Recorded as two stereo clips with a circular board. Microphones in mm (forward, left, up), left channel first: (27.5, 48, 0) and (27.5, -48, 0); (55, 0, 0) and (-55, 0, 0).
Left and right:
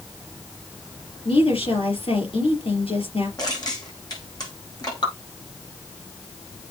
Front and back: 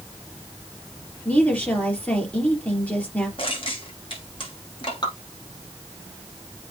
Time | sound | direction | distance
1.2 | a woman speaking | 75° left | 4 m
3.4 | crushing | 40° left | 5.5 m
5.0 | dripping | 50° left | 4.5 m